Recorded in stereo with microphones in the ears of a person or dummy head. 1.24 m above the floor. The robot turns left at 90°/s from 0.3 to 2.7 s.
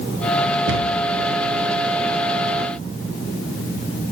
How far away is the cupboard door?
About 0.7 m.